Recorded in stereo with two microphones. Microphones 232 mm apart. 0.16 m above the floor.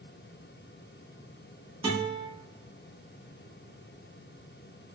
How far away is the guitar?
About 1.1 m.